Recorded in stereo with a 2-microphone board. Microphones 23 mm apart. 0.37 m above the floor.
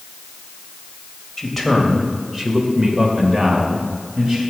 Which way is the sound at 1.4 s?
5° left (ahead or behind).